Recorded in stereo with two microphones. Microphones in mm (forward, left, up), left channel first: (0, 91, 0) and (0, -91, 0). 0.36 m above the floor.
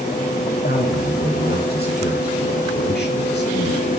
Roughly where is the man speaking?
Left.